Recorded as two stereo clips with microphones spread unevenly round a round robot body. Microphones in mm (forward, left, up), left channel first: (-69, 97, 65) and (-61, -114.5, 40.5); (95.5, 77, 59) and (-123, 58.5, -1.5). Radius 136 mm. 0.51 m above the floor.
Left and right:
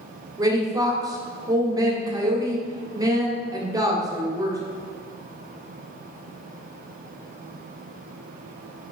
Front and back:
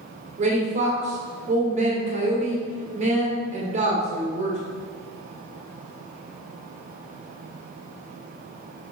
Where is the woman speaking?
150° right, 1.9 m.